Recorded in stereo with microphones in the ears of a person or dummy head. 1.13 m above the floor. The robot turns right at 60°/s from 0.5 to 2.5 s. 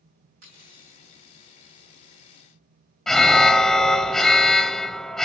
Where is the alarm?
Centre (ahead or behind), 0.5 m.